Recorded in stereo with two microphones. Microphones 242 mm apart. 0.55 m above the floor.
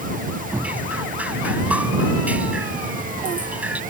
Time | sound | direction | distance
0.5 | dripping | 5° right (ahead or behind) | ?